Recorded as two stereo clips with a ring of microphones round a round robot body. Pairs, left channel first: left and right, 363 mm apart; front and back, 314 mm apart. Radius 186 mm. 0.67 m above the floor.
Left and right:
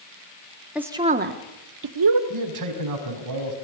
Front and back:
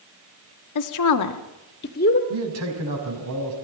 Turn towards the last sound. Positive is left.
turn(degrees=-130)